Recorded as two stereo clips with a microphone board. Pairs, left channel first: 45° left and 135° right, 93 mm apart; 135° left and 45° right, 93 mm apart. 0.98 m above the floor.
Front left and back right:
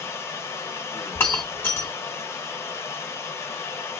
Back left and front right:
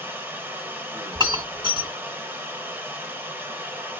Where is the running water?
5° left, 0.8 m.